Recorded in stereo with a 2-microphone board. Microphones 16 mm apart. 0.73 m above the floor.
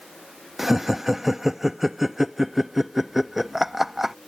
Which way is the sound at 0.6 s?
15° right (ahead or behind).